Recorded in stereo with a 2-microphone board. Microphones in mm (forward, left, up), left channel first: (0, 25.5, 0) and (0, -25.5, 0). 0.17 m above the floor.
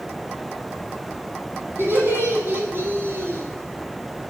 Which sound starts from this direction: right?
Laughter, at 1.8 s.